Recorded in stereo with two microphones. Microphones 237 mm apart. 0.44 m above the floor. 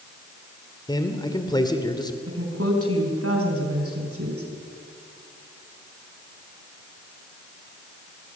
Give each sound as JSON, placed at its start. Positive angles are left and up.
{"t": 0.9, "sound": "a man speaking", "side_deg": 20, "distance_m": 1.8}
{"t": 2.3, "sound": "a woman speaking", "side_deg": -75, "distance_m": 5.0}